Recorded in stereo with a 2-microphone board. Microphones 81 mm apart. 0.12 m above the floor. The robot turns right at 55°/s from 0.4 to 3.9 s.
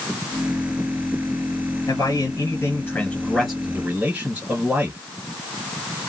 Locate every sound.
1.9 s a man speaking: 90° left, 2 m; by 5.0 s 160° right, 2 m